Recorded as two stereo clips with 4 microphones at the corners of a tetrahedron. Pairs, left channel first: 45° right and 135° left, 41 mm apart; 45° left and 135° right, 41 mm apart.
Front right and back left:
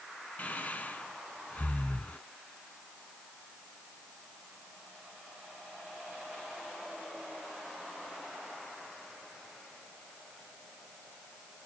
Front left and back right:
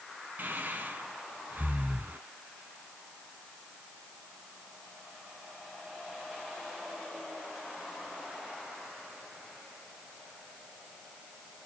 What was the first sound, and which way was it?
Breathing, 95° right.